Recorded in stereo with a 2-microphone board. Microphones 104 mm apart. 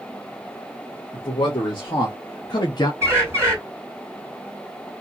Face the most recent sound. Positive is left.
turn(degrees=-25)  # may be behind; listen again after turning